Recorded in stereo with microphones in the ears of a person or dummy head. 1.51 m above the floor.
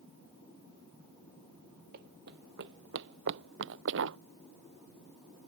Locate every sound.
1.9 s running footsteps: 55° right (ahead or behind); by 4.2 s 70° right (ahead or behind)